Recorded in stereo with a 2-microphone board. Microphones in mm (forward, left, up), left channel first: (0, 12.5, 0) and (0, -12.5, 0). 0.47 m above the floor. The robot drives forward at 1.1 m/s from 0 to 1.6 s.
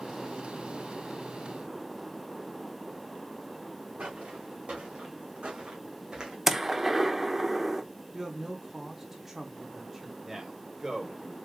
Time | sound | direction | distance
4.0 | footsteps | 70° right (ahead or behind) | 2.5 m
6.5 | a gunshot | 10° right (ahead or behind) | 0.7 m
8.1 | a man speaking | 10° right (ahead or behind) | 0.9 m
10.2 | a man speaking | 15° right (ahead or behind) | 2.5 m